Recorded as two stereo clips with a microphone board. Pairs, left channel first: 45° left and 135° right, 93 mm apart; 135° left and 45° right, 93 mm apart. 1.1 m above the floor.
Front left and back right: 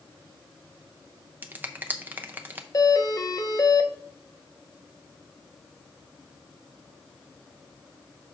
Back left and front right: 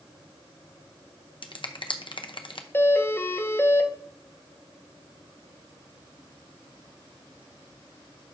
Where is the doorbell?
75° left, 0.8 m.